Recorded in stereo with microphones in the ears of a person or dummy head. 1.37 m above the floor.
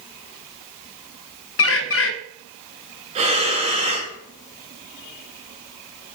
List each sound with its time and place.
1.6 s a bird: 65° left (ahead or behind), 0.8 m
3.1 s breathing: 35° right (ahead or behind), 1.3 m